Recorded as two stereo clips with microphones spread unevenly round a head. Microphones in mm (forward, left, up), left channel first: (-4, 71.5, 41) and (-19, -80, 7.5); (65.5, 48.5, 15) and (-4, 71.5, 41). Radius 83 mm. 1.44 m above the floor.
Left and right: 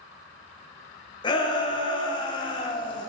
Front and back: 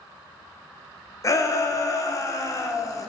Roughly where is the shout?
Ahead.